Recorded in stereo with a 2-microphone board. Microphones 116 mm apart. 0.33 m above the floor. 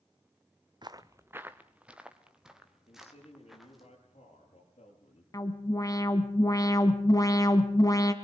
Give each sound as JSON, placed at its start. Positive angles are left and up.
{"t": 0.8, "sound": "footsteps", "side_deg": -40, "distance_m": 0.8}
{"t": 2.9, "sound": "a man speaking", "side_deg": 60, "distance_m": 8.5}
{"t": 5.3, "sound": "an alarm", "side_deg": 30, "distance_m": 1.9}